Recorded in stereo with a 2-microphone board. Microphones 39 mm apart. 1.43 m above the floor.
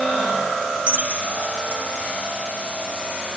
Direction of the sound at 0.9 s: 35° right (ahead or behind).